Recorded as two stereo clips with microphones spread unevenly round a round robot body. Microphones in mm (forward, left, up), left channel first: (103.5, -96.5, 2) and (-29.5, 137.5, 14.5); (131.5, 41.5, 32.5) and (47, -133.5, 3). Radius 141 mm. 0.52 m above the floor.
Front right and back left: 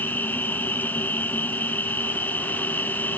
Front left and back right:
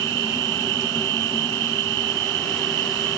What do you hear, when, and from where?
0.0 s an insect: 145° right